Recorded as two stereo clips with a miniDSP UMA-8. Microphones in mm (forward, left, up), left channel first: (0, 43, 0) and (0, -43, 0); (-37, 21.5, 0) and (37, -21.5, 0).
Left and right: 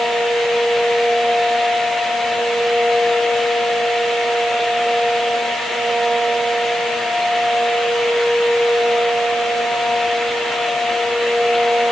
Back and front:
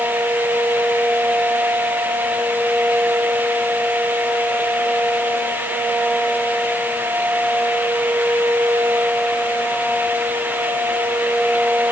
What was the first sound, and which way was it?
Only background noise.